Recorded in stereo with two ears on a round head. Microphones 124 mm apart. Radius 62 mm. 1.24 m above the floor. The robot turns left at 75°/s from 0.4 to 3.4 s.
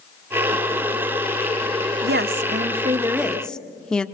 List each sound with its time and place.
2.0 s a woman speaking: 80° right, 1.2 m; by 4.1 s 175° left, 1.2 m